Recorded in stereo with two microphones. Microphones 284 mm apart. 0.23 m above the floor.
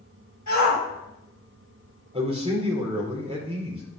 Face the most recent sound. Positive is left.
turn(degrees=-20)  # may be behind; listen again after turning